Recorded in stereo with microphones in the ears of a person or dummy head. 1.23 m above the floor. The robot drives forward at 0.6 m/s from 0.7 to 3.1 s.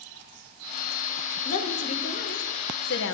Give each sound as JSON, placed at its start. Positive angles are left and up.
{"t": 1.4, "sound": "a woman speaking", "side_deg": 35, "distance_m": 1.6}